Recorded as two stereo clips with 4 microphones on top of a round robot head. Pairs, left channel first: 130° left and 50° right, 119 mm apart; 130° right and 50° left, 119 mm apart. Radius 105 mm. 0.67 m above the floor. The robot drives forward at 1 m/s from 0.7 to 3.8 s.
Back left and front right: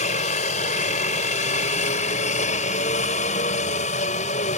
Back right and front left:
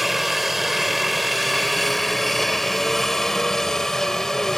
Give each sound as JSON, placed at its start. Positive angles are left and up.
{"t": 0.0, "sound": "a helicopter", "azimuth_deg": 140}